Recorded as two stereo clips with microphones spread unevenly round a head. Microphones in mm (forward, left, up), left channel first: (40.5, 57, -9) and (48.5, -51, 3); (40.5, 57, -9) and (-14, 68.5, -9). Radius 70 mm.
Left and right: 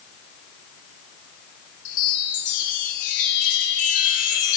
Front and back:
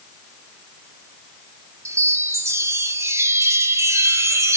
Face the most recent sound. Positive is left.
turn(degrees=130)